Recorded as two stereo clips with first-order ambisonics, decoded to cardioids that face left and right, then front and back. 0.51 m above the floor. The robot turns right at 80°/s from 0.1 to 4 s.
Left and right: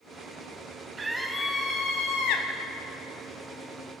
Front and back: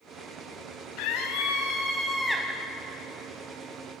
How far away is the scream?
About 4 m.